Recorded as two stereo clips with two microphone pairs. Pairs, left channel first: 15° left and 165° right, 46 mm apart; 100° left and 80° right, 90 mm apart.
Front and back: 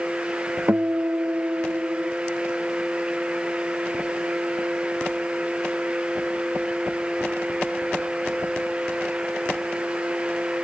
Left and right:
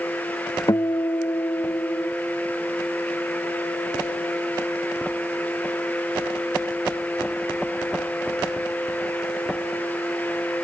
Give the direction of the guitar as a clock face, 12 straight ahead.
7 o'clock.